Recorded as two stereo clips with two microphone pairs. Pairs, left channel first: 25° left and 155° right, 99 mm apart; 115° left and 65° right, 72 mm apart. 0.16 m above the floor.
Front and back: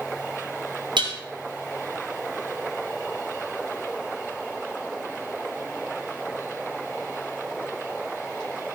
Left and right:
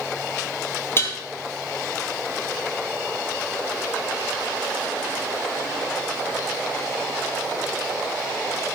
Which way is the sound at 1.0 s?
170° left.